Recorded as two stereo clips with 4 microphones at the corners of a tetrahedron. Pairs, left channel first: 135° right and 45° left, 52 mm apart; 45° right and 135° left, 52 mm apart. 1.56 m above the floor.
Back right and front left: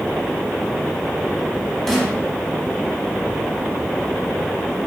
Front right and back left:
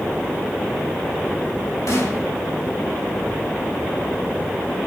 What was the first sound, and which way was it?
A snare drum, 55° right.